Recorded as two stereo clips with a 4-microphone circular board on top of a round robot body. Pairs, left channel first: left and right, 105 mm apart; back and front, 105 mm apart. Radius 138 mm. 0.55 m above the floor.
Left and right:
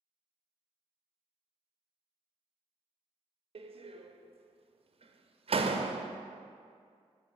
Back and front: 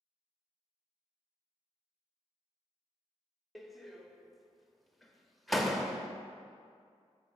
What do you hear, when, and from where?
3.5 s a door slam: 90° right, 0.6 m